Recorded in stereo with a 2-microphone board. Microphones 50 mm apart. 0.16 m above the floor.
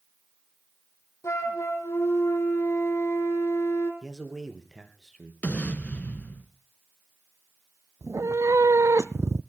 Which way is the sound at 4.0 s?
10° right (ahead or behind).